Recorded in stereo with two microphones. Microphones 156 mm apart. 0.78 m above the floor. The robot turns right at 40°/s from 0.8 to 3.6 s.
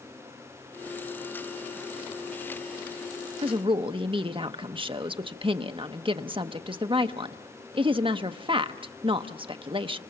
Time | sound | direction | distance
3.4 | a woman speaking | 35° right (ahead or behind) | 0.7 m